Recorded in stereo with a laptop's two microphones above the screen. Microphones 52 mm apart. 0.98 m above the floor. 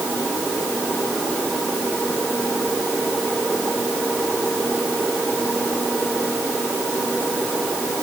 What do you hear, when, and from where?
Only background noise.